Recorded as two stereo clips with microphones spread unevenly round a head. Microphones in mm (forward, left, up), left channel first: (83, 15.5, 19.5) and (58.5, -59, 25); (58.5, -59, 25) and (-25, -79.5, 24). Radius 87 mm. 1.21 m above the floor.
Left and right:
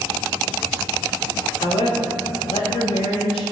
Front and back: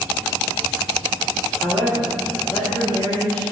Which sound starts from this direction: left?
A woman speaking, at 1.6 s.